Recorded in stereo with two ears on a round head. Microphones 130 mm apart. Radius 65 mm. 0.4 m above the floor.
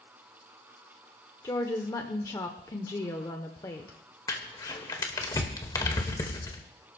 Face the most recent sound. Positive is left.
turn(degrees=25)  # may be behind; listen again after turning